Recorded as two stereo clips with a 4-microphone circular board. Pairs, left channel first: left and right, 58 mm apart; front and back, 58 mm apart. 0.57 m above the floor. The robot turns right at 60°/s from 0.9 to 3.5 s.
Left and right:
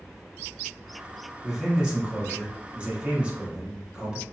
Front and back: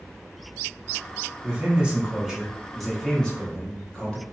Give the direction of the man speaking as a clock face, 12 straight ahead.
6 o'clock.